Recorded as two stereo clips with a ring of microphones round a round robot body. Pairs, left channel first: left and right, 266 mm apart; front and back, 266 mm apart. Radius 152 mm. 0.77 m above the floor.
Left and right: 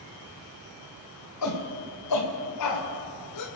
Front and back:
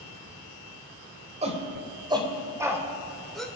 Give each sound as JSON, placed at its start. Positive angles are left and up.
{"t": 1.4, "sound": "a shout", "azimuth_deg": 115, "distance_m": 3.0}